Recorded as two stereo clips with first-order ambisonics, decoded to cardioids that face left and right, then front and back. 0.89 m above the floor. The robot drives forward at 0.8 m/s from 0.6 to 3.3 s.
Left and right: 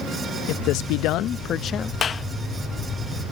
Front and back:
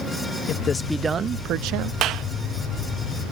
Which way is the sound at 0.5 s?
60° left.